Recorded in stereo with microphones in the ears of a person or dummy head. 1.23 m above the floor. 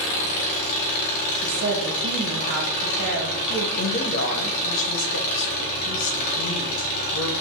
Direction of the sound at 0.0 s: 50° left (ahead or behind).